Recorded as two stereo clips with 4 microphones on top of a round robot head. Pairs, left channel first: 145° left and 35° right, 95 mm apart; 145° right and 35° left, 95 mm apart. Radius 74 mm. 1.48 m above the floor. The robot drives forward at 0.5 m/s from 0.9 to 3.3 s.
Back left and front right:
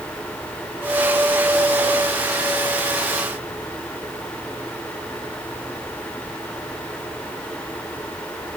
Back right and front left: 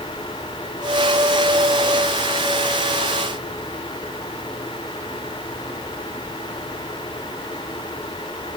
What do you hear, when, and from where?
Only background noise.